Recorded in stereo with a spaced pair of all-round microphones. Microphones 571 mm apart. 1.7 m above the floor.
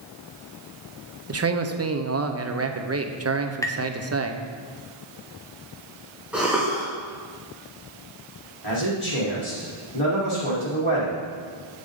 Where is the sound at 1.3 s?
30° right (ahead or behind), 0.5 m.